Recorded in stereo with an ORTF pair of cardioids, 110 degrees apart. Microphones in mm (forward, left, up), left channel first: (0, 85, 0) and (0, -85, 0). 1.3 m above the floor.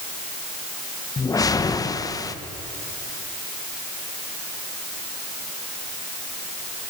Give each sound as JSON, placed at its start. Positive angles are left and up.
{"t": 1.2, "sound": "a whoosh", "azimuth_deg": 20, "distance_m": 1.3}